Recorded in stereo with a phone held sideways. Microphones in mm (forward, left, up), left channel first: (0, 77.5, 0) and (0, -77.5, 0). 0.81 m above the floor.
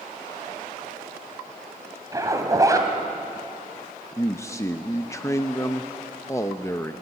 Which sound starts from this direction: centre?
A man speaking, at 4.2 s.